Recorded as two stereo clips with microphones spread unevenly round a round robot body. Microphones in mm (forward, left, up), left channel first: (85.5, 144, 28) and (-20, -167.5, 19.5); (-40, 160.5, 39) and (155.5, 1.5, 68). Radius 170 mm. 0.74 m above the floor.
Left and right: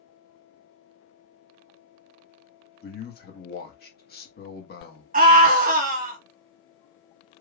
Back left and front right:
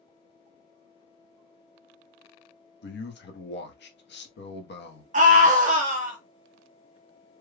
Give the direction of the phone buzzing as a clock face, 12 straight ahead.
I don't hear a phone buzzing.